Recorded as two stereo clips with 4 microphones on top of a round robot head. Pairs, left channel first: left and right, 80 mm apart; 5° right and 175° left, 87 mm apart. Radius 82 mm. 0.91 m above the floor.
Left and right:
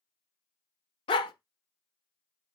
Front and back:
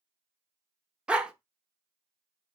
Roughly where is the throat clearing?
No throat clearing in this recording.